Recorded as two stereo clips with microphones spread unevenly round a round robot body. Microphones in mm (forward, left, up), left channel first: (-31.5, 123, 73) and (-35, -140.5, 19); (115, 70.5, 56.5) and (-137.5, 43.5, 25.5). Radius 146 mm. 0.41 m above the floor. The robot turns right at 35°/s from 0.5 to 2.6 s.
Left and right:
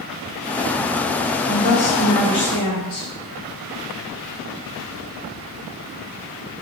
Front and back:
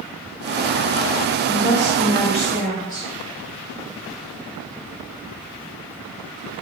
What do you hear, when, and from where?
1.5 s a woman speaking: 50° left, 1.1 m; by 3.1 s 90° left, 1.1 m